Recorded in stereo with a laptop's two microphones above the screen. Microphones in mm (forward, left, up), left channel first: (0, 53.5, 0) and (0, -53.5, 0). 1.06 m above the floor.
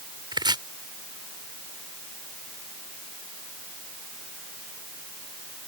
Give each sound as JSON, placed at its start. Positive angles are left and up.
{"t": 0.3, "sound": "chopping", "side_deg": -45}